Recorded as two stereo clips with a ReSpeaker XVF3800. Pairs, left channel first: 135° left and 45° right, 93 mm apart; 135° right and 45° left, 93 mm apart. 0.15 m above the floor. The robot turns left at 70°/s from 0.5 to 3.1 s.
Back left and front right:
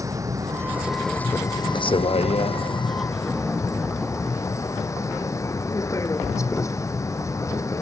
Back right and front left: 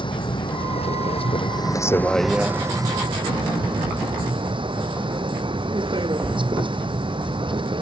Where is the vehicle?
100° right; by 7.8 s 75° left.